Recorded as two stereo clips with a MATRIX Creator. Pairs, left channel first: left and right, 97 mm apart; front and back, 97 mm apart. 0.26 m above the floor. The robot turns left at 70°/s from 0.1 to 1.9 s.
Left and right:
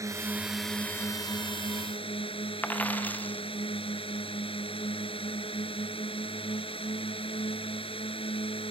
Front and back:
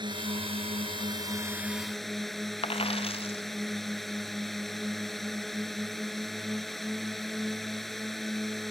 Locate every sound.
0.0 s a drone: 145° right; by 8.7 s 90° left
2.6 s a dropped coin: 15° left